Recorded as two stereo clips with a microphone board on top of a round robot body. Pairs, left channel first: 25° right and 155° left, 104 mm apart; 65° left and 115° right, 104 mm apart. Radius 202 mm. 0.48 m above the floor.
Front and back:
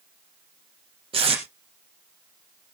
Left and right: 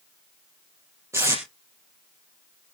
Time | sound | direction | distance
1.1 | tape being pulled | 175° right | 4 m